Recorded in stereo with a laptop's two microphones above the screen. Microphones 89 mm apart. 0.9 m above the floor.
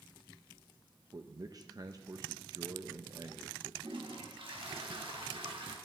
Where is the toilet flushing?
70° right (ahead or behind), 1.1 m.